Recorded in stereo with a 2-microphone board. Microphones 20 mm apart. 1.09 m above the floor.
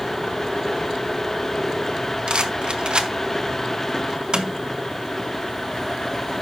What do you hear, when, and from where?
2.3 s a rattle: 55° right (ahead or behind), 1.1 m